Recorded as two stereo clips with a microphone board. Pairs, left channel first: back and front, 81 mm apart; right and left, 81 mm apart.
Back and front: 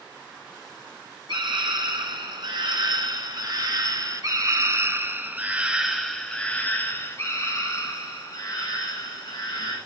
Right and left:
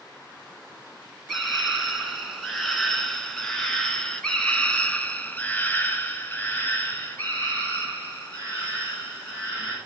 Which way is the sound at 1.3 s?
Straight ahead.